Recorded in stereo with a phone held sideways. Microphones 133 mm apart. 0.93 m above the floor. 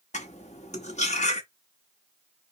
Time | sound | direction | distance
0.1 | cutlery clinking | 60° left (ahead or behind) | 1.1 m